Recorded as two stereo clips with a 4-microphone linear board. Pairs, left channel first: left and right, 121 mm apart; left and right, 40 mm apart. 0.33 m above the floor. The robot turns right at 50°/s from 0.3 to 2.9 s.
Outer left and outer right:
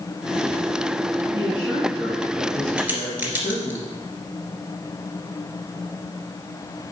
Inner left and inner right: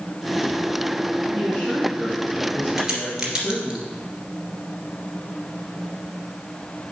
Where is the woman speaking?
10° right, 3.5 m; by 3.8 s 70° left, 3.5 m.